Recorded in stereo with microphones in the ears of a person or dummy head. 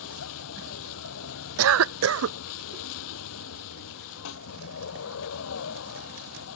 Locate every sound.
0.0 s a vehicle: 85° left
1.6 s a cough: 85° right
4.2 s a snare drum: 85° left